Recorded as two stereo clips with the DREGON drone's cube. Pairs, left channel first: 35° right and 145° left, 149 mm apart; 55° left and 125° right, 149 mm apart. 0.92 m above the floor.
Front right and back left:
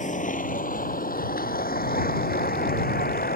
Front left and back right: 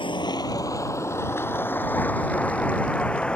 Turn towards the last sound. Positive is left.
turn(degrees=-30)